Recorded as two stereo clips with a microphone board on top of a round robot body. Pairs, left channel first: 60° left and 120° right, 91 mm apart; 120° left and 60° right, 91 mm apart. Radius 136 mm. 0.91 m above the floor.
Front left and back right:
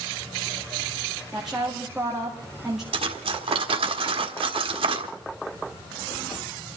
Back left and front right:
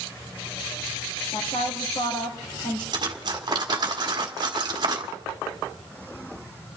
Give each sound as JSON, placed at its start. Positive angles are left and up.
{"t": 1.3, "sound": "a woman speaking", "azimuth_deg": 155, "distance_m": 2.0}
{"t": 2.9, "sound": "cutlery clinking", "azimuth_deg": -105, "distance_m": 1.4}